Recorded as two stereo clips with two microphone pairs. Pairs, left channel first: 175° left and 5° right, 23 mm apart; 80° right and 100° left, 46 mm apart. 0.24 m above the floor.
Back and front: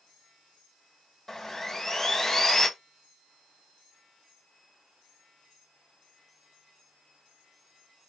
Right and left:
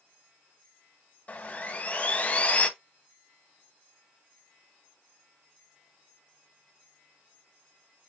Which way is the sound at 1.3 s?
120° right.